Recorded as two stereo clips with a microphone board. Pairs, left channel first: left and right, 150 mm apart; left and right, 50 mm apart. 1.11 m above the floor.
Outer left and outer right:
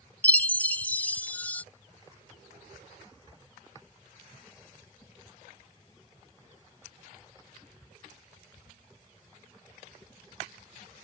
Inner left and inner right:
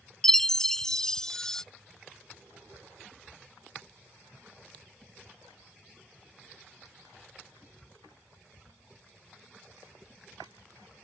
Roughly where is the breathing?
I don't hear breathing.